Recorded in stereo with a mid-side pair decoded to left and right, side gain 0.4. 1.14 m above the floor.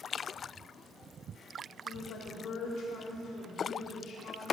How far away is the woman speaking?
About 3.5 m.